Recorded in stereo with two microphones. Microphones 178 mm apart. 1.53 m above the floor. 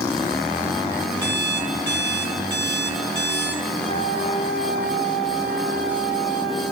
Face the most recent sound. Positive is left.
turn(degrees=-70)  # may be behind; listen again after turning